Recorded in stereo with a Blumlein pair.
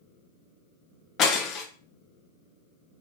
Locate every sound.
1.2 s breaking glass: 30° left, 0.7 m